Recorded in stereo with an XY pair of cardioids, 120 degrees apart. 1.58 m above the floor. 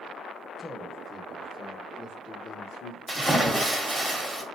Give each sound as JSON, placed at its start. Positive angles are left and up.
{"t": 0.6, "sound": "a man speaking", "azimuth_deg": 0, "distance_m": 1.3}
{"t": 3.1, "sound": "a splash", "azimuth_deg": -10, "distance_m": 1.1}